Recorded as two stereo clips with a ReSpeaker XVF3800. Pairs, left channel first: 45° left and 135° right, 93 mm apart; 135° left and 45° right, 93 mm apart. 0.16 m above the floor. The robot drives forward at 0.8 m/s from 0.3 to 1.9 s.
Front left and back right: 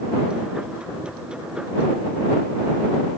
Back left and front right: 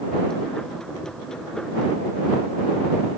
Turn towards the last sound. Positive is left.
No sound to turn to.